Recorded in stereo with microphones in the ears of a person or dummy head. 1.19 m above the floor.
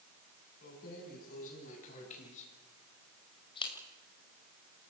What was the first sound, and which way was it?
Keys jangling, 50° left (ahead or behind).